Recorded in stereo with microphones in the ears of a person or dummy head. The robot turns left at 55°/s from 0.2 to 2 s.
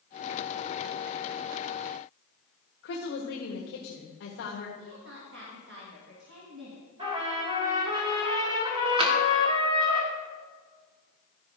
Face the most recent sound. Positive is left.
turn(degrees=-35)  # may be behind; listen again after turning